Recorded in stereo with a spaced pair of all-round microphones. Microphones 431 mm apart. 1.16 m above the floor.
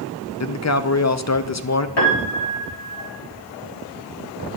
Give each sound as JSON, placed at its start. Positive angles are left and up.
{"t": 0.4, "sound": "a man speaking", "side_deg": 40, "distance_m": 0.5}
{"t": 2.0, "sound": "a piano", "side_deg": 70, "distance_m": 2.0}